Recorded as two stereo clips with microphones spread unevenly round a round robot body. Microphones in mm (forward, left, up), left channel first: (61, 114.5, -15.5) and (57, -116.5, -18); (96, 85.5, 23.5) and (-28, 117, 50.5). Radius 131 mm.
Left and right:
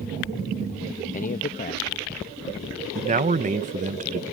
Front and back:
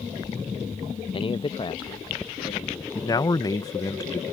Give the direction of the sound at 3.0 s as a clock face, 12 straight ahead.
2 o'clock.